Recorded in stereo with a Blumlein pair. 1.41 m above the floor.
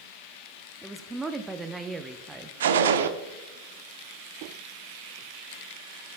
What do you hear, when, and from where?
0.8 s a woman speaking: 10° right, 0.5 m
2.6 s a gunshot: 60° right, 0.7 m